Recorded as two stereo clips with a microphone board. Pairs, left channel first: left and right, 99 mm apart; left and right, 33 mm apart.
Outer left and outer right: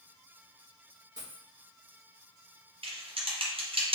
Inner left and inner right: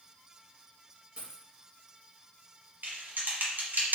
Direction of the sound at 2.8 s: 65° right (ahead or behind).